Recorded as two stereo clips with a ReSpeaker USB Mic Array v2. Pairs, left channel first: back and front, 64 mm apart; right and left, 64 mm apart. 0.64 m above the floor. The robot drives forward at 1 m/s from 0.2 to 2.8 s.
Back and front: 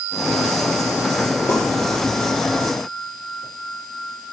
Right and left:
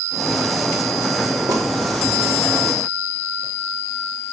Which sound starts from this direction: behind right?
A pop, at 1.5 s.